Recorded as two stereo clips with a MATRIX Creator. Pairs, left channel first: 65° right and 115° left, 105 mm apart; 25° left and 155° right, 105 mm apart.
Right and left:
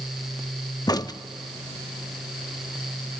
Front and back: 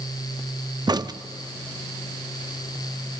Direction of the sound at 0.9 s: 115° right.